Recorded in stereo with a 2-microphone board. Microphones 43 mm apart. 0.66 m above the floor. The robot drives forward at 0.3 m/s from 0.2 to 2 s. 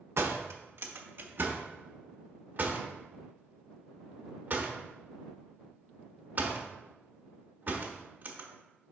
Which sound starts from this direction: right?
A door slam, at 0.2 s.